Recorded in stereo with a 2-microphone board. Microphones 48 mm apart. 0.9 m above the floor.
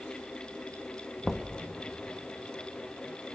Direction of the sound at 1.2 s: 5° left (ahead or behind).